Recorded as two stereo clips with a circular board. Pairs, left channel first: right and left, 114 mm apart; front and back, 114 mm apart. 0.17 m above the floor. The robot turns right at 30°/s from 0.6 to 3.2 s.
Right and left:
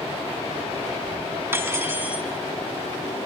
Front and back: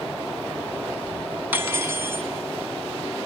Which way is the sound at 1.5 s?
130° left.